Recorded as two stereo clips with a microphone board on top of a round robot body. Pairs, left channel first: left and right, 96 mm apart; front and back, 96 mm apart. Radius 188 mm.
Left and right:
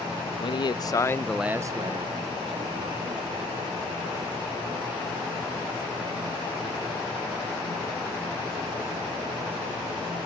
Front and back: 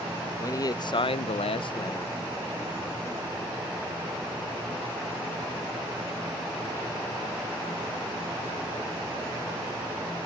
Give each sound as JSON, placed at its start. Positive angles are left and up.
{"t": 0.4, "sound": "a man speaking", "azimuth_deg": 55}